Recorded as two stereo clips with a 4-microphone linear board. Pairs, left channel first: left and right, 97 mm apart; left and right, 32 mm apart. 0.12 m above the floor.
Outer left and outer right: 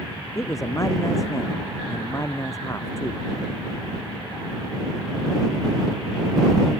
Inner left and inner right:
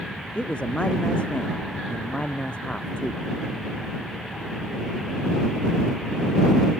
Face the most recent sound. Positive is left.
turn(degrees=30)  # may be behind; listen again after turning